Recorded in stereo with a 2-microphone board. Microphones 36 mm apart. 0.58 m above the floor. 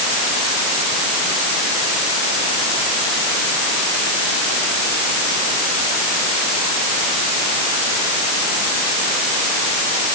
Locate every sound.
Only background noise.